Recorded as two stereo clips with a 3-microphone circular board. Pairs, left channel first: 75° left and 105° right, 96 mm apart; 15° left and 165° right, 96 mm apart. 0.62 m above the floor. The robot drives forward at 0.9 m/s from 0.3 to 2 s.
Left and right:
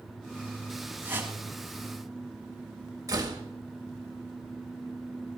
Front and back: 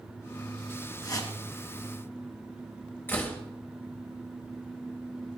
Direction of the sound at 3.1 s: 55° right.